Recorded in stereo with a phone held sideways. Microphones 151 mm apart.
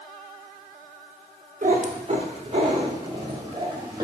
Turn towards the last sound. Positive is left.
turn(degrees=-25)  # may be behind; listen again after turning